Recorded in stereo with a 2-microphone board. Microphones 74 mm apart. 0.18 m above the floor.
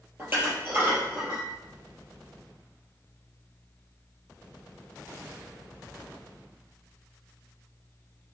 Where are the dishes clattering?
30° right (ahead or behind), 3 m.